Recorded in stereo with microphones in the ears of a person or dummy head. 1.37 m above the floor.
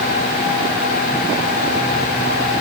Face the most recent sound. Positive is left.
No sound to turn to.